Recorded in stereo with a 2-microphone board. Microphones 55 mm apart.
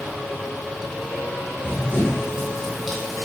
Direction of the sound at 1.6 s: 20° right (ahead or behind).